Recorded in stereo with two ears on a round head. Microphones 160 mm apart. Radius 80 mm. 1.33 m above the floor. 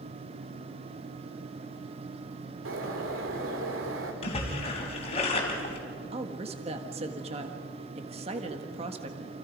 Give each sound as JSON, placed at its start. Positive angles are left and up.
{"t": 2.6, "sound": "a bird", "side_deg": -85, "distance_m": 3.0}
{"t": 4.2, "sound": "a splash", "side_deg": 35, "distance_m": 4.0}
{"t": 6.1, "sound": "a woman speaking", "side_deg": -35, "distance_m": 1.7}